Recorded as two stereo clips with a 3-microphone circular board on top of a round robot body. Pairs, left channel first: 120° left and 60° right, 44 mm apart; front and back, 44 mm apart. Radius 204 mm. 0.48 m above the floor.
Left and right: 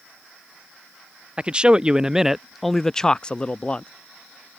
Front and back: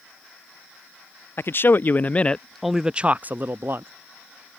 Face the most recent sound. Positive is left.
turn(degrees=180)